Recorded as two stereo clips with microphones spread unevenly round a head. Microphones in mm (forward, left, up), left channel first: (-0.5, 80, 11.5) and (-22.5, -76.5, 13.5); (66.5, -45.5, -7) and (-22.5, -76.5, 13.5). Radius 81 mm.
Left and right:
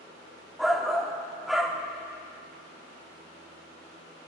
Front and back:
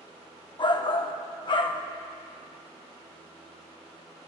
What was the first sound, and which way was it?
A shout, 10° right.